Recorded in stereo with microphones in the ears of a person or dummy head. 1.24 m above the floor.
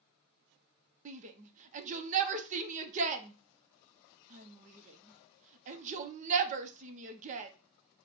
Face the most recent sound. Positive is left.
turn(degrees=-40)  # may be behind; listen again after turning